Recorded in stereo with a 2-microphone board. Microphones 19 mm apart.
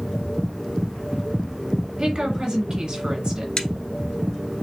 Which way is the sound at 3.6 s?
40° left (ahead or behind).